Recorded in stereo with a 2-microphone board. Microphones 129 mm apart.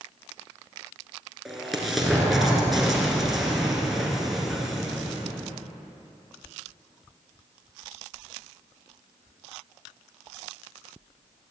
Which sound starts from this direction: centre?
An explosion, at 1.4 s.